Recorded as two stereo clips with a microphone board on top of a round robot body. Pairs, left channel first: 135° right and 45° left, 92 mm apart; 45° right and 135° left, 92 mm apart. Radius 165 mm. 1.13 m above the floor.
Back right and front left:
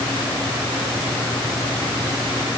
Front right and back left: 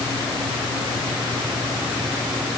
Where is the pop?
I don't hear a pop.